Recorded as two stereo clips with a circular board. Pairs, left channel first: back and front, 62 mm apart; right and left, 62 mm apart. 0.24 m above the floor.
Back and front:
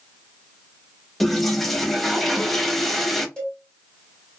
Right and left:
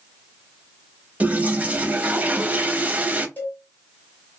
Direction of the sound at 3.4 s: 115° right.